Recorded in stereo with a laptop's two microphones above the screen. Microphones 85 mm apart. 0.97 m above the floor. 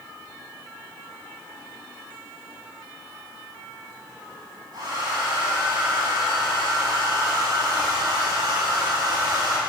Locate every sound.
4.7 s a hair dryer: 60° right (ahead or behind), 9 m